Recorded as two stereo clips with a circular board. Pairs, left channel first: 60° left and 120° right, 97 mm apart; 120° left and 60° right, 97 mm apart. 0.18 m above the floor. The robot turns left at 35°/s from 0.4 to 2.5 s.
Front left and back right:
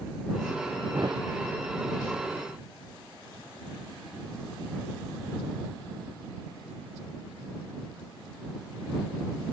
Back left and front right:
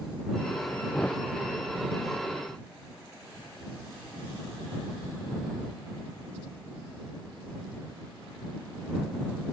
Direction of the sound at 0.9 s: 160° right.